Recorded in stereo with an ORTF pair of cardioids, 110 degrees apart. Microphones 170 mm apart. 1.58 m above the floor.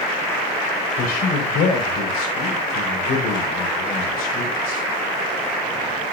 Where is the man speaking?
65° left, 5.5 m.